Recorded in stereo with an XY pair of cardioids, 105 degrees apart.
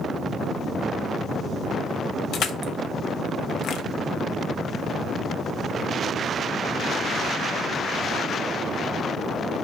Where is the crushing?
65° left, 1.0 m.